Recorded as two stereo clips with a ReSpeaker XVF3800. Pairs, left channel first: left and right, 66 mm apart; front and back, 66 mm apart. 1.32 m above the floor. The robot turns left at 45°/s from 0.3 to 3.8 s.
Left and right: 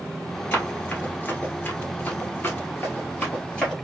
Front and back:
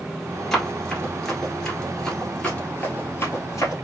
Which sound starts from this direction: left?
Running footsteps, at 0.5 s.